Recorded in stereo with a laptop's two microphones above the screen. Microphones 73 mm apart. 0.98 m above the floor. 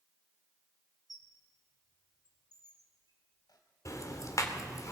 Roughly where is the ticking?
Left.